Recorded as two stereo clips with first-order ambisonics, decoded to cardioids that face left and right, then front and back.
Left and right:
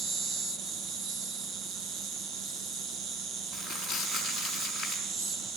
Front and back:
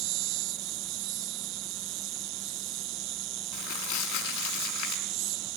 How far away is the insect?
About 1.1 m.